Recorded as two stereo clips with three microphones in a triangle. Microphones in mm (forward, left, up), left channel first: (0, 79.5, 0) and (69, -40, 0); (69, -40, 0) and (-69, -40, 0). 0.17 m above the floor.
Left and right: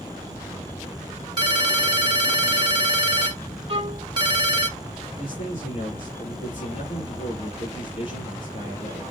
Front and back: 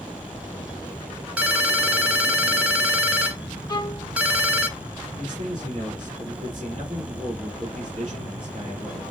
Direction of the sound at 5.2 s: 135° left.